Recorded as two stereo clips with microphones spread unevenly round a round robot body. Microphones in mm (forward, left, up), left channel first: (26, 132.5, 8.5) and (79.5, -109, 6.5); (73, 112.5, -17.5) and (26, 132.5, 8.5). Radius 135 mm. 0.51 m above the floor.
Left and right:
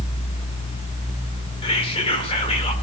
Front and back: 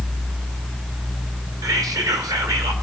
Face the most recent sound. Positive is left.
turn(degrees=165)